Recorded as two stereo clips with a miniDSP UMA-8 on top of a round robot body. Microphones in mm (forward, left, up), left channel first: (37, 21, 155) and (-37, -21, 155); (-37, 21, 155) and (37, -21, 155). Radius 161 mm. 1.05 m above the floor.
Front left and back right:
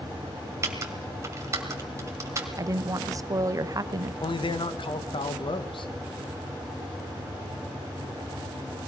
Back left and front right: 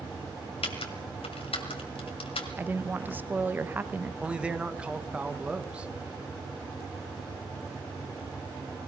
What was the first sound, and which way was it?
Typing on a keyboard, 155° left.